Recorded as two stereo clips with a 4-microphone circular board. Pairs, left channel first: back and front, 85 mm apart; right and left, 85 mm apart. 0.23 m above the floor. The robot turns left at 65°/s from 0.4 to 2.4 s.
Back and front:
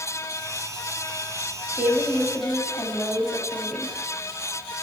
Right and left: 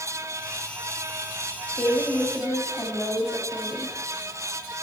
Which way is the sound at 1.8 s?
45° right.